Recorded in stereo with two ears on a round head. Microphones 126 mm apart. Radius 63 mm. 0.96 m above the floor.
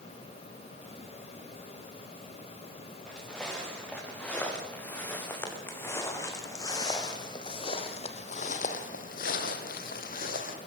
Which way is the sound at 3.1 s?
5° left (ahead or behind).